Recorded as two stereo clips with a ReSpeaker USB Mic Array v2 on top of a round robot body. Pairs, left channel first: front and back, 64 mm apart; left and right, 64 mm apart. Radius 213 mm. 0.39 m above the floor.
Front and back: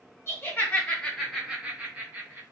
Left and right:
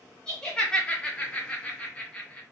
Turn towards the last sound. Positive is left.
turn(degrees=155)